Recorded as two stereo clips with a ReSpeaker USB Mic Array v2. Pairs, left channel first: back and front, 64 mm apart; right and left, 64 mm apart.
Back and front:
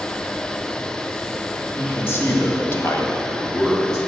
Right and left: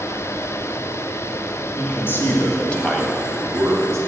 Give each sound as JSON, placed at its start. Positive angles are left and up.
{"t": 1.8, "sound": "a man speaking", "azimuth_deg": -130, "distance_m": 3.0}